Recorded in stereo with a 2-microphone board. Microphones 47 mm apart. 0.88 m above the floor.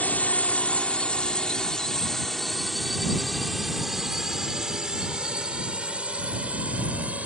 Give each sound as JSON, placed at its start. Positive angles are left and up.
{"t": 0.0, "sound": "a drone", "side_deg": 35}